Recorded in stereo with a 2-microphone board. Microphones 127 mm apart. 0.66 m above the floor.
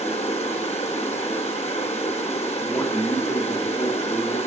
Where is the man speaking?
30° left (ahead or behind), 1.4 m.